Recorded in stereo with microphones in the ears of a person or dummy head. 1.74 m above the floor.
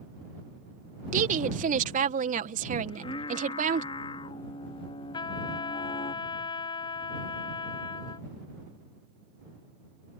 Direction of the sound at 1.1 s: 50° right (ahead or behind).